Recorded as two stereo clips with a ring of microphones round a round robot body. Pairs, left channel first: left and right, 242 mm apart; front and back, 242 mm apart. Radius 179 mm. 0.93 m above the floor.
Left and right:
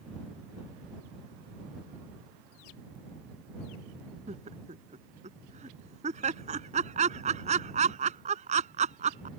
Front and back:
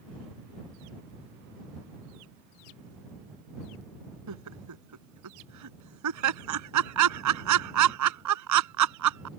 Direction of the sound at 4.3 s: 160° right.